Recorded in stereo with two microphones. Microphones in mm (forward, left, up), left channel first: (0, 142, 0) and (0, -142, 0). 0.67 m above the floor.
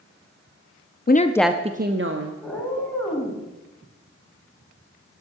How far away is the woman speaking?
About 0.6 m.